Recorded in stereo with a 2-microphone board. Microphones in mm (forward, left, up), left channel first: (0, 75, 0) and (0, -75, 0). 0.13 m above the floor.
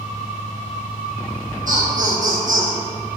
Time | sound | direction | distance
1.7 | laughter | 65° right (ahead or behind) | 3 m